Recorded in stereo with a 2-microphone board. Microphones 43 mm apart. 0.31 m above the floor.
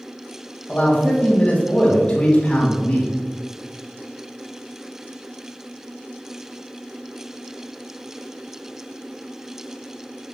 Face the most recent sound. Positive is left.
turn(degrees=30)  # may be behind; listen again after turning